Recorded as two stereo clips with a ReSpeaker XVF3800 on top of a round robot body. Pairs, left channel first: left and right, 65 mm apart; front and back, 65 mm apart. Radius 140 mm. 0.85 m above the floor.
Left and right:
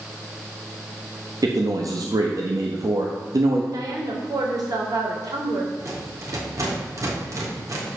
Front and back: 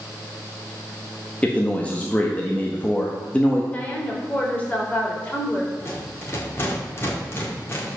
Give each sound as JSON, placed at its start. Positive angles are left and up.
{"t": 1.4, "sound": "a man speaking", "azimuth_deg": -70, "distance_m": 1.5}
{"t": 3.7, "sound": "a woman speaking", "azimuth_deg": -70, "distance_m": 3.5}
{"t": 5.8, "sound": "a rattle", "azimuth_deg": -50, "distance_m": 3.0}